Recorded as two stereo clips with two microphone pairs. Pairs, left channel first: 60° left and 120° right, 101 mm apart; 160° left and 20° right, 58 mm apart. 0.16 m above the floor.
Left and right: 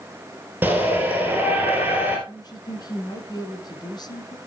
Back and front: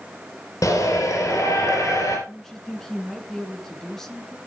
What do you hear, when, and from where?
0.6 s a shout: 170° left, 3 m
2.3 s a woman speaking: 80° left, 2 m